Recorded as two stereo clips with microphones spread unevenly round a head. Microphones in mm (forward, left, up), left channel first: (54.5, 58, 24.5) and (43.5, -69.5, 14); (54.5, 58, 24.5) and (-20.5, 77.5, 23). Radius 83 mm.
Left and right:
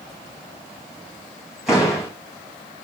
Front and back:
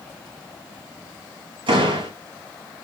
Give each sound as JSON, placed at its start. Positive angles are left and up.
{"t": 1.7, "sound": "a door slam", "azimuth_deg": 175, "distance_m": 4.0}